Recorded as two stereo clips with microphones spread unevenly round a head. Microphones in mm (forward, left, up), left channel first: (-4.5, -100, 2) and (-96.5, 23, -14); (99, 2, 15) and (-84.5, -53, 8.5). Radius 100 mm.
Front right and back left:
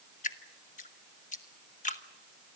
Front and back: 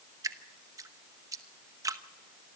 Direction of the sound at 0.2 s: 90° right.